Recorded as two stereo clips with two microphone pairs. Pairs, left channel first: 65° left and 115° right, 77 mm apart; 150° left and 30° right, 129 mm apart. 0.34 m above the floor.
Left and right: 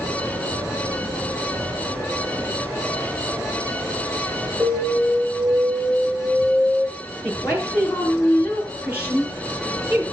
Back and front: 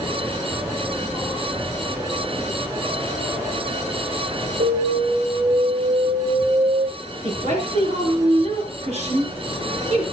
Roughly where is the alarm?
Ahead right.